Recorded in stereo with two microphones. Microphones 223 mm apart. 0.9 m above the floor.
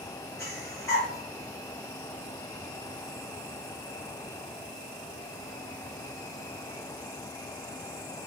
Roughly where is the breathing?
Centre.